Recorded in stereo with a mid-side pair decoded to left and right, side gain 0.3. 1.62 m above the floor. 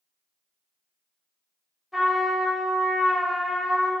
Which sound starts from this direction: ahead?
A trumpet, at 1.9 s.